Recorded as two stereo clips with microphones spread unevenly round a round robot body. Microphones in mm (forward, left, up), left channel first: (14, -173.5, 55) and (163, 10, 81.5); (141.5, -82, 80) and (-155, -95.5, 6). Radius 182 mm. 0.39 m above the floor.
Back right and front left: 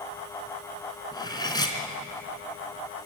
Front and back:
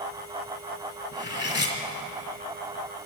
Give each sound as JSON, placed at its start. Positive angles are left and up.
{"t": 1.1, "sound": "cutlery clinking", "azimuth_deg": -55, "distance_m": 3.0}